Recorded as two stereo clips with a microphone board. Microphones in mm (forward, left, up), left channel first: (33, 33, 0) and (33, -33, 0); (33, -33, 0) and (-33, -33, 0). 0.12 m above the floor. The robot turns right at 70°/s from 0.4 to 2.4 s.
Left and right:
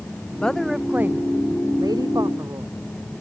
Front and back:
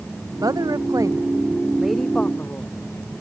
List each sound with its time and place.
0.4 s a woman speaking: 165° left; by 2.7 s 55° right